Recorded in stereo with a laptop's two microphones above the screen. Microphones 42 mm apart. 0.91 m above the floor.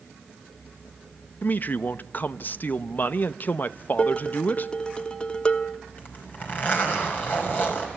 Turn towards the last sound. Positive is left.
turn(degrees=45)  # may be behind; listen again after turning